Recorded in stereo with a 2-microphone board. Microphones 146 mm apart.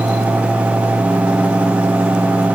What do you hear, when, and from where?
Only background noise.